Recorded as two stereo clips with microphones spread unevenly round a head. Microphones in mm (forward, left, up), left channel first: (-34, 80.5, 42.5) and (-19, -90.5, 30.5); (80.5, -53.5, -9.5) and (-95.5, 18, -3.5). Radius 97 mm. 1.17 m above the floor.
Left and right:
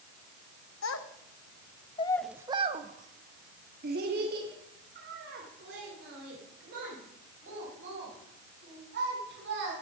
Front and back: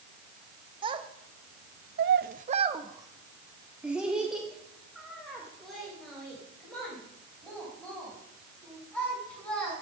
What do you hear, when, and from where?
0.8 s a child speaking: 90° left, 1.2 m; by 9.7 s 110° right, 6.5 m